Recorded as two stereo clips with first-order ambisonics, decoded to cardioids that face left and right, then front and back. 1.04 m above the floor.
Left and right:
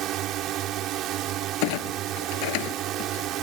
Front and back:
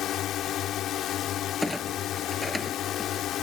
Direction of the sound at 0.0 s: 50° right.